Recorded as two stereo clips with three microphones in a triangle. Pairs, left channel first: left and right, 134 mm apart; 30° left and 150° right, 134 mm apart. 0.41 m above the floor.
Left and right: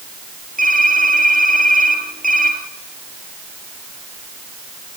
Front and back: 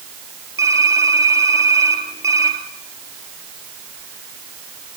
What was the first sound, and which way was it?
Typing on a keyboard, 80° right.